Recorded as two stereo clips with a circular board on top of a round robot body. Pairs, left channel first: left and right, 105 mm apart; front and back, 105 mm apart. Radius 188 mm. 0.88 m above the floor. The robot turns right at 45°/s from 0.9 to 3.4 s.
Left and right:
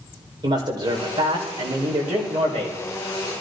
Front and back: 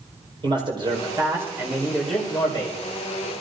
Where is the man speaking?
140° right, 4.5 m; by 2.8 s 55° right, 4.5 m.